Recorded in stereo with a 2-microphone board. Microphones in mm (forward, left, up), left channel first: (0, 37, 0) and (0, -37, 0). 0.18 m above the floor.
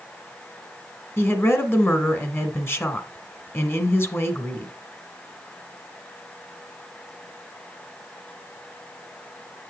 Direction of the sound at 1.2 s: 30° left (ahead or behind).